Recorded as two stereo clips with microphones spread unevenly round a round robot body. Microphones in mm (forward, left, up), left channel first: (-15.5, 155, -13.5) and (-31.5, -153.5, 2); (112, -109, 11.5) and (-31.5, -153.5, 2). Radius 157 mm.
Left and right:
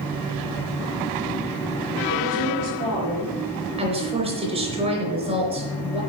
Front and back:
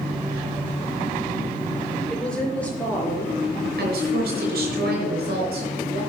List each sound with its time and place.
2.1 s a woman speaking: 70° right, 4.5 m; by 3.4 s 60° right, 4.5 m
3.8 s a woman speaking: 165° right, 4.5 m